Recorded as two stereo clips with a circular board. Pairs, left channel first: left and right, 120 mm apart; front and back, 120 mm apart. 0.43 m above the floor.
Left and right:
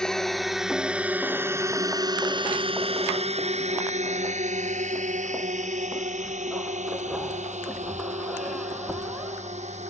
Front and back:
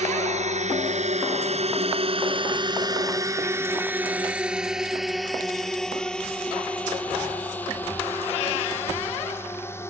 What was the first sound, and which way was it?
A drone, 175° left.